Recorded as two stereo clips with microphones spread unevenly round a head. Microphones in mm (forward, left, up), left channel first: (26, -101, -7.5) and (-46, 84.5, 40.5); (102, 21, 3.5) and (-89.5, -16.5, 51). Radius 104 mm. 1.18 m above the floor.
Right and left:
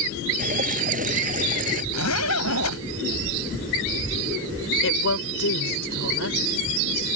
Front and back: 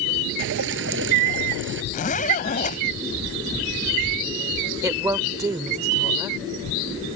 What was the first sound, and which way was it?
Dripping, 160° left.